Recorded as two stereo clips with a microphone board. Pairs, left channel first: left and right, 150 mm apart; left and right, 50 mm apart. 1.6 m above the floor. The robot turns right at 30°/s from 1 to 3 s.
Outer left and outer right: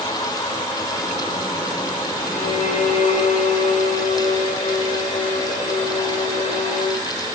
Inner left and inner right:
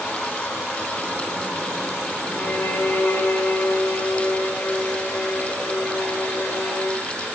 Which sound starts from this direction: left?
A violin, at 2.3 s.